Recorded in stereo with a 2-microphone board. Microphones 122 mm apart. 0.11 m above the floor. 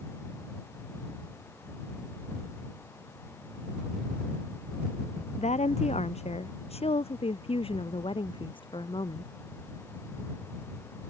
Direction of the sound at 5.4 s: 65° left (ahead or behind).